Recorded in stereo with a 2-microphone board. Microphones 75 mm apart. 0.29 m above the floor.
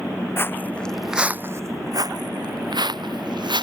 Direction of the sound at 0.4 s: 35° left (ahead or behind).